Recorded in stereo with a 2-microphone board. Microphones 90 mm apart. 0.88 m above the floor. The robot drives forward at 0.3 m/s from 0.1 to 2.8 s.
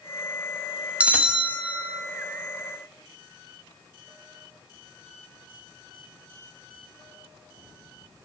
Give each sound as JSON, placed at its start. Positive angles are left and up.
{"t": 1.0, "sound": "a bell", "side_deg": -15, "distance_m": 0.7}